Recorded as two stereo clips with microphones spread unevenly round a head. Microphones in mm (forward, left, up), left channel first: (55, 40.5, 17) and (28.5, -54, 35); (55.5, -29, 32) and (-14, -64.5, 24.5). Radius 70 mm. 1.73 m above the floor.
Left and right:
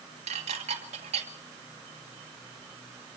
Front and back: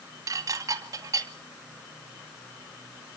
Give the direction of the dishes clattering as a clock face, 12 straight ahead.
4 o'clock.